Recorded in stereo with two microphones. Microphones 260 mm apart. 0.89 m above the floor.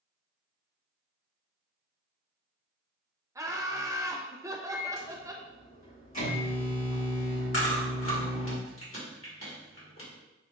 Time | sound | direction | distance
3.4 | laughter | 10° right (ahead or behind) | 0.6 m
4.7 | a microwave | 80° left | 1.6 m
7.5 | chewing | 50° left (ahead or behind) | 1.5 m